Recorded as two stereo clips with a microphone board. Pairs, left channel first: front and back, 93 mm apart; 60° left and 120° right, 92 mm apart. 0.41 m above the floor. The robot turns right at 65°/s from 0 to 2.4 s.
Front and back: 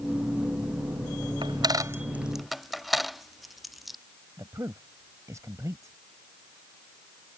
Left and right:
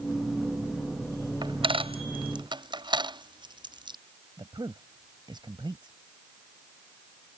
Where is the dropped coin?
155° right; by 4.0 s 90° right.